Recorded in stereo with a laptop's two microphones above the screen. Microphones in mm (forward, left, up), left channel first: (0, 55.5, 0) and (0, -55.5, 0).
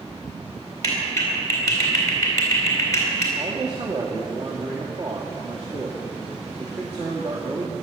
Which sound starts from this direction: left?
A clap, at 0.8 s.